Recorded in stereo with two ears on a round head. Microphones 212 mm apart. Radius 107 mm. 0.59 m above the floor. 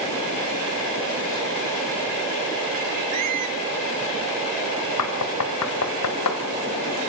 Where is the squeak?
75° right (ahead or behind), 1.6 m.